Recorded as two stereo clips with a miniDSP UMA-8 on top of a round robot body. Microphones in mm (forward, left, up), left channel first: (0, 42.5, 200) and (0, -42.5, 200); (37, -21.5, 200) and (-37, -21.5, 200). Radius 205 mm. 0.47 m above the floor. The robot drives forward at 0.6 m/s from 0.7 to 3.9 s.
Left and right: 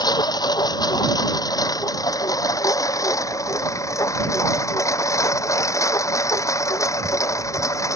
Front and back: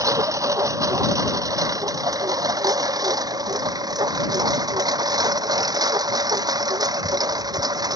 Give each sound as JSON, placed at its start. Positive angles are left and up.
{"t": 0.0, "sound": "a lawn mower", "azimuth_deg": 135}